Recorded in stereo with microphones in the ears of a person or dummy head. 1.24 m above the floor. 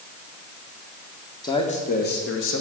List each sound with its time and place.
1.4 s a man speaking: 25° left (ahead or behind), 1.4 m; by 2.6 s 70° left (ahead or behind), 1.7 m